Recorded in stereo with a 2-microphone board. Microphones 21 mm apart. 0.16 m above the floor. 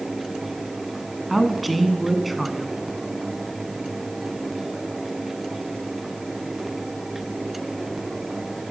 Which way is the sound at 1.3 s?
5° right (ahead or behind).